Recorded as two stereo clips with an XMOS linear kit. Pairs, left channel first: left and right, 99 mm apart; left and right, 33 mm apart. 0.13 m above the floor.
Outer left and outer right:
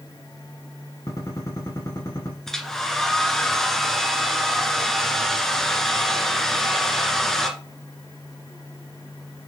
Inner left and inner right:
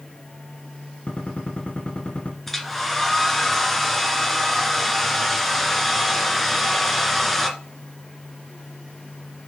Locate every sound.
1.1 s a gunshot: 35° left (ahead or behind), 1.8 m
2.5 s a hair dryer: 5° left (ahead or behind), 1.6 m